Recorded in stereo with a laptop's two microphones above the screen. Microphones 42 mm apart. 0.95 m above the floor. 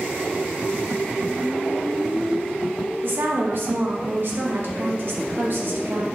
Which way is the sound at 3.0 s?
60° right (ahead or behind).